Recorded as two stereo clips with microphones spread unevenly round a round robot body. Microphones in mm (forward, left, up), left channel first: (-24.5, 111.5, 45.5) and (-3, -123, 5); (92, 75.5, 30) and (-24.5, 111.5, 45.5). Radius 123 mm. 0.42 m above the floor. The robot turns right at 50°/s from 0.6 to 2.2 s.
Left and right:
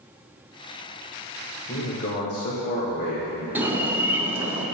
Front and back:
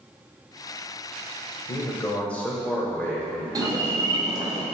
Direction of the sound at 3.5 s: 150° right.